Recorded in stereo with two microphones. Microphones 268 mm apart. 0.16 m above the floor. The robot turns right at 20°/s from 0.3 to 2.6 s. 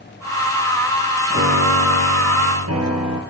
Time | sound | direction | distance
1.3 | a piano | 45° right (ahead or behind) | 3.5 m